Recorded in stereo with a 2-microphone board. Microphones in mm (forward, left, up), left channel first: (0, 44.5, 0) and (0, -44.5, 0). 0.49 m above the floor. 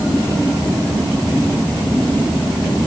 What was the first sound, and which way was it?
Only background noise.